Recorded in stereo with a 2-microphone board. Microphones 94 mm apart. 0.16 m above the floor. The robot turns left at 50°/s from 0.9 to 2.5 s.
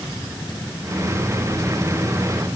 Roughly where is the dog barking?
I don't hear a dog barking.